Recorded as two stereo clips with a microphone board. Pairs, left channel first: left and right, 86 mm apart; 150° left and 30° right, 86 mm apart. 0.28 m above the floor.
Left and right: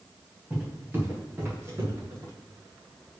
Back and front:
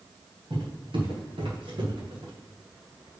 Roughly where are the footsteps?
Ahead.